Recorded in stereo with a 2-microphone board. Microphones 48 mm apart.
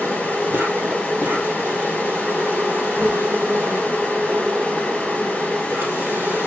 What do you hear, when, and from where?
0.0 s an insect: 65° right (ahead or behind), 3 m